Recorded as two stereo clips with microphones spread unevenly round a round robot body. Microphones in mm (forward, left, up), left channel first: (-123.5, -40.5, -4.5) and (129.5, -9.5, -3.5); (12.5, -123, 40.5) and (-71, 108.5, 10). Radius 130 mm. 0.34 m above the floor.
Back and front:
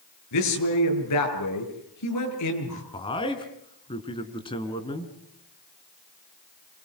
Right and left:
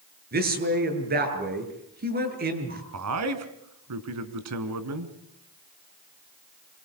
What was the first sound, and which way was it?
A man speaking, 160° left.